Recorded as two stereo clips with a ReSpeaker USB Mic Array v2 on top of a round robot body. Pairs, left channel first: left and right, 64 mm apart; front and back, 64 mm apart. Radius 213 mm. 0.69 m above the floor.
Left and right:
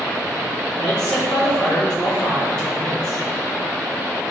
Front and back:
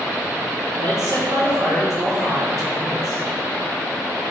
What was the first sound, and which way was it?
A man speaking, 170° left.